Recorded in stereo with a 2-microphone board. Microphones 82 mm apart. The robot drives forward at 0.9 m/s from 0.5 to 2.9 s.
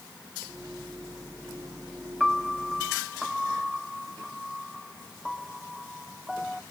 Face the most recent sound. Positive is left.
turn(degrees=0)  # may be behind; listen again after turning